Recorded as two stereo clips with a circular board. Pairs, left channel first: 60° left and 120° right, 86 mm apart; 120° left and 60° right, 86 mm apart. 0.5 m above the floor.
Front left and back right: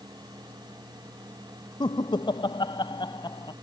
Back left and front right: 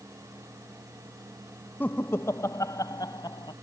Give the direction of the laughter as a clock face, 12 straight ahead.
10 o'clock.